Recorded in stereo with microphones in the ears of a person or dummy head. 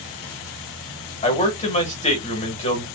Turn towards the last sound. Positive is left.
turn(degrees=30)  # may be behind; listen again after turning